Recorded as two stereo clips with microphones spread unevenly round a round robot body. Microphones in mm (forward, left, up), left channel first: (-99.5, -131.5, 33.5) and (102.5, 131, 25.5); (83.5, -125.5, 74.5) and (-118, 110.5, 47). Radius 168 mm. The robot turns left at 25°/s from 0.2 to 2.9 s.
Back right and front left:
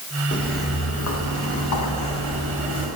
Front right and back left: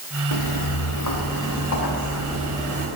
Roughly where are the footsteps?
Ahead right.